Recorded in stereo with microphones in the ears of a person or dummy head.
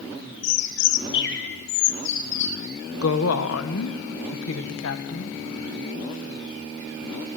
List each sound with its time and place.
0.4 s a bird: 60° left (ahead or behind), 1.2 m
3.0 s a woman speaking: 75° left (ahead or behind), 1.6 m